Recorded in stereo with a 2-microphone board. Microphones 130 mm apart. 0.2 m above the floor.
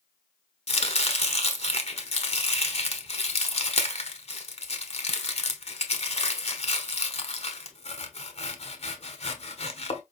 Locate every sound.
0.7 s chopping: 50° left (ahead or behind), 0.8 m